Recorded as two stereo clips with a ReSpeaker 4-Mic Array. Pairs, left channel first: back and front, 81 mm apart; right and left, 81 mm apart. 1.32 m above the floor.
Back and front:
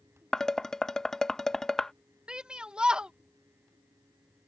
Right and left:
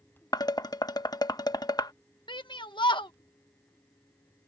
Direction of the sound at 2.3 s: 80° right.